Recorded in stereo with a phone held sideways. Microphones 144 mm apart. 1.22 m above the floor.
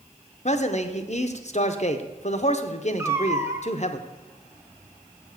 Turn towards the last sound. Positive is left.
turn(degrees=-20)  # may be behind; listen again after turning